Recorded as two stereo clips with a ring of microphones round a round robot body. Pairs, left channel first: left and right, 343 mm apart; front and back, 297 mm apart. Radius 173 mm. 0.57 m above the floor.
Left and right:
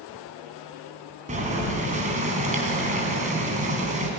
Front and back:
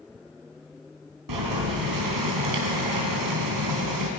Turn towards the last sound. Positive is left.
turn(degrees=-160)